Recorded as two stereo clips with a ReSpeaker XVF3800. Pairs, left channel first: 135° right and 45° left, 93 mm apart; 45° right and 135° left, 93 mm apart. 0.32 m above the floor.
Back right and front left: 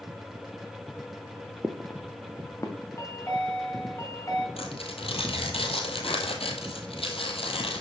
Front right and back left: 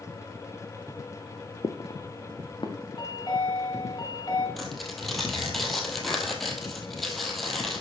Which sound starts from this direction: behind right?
Tearing paper, at 4.6 s.